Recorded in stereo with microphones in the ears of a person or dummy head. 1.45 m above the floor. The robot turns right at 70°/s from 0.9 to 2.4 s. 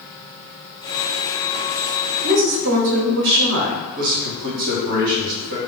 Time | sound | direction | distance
2.2 | a woman speaking | 55° right (ahead or behind) | 0.7 m
4.0 | a man speaking | 50° right (ahead or behind) | 1.2 m